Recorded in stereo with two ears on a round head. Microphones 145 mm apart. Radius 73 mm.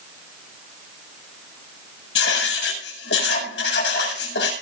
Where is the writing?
85° left, 7.5 m.